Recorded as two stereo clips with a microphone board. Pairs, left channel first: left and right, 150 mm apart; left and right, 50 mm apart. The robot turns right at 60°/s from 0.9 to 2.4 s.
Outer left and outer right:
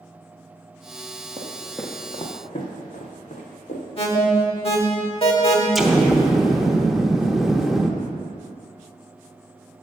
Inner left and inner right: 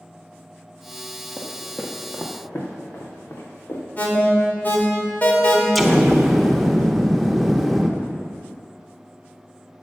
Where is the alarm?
40° left (ahead or behind), 1.3 m.